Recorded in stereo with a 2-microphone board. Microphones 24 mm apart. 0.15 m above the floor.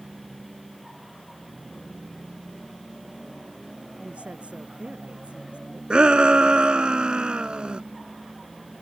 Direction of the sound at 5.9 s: 45° right (ahead or behind).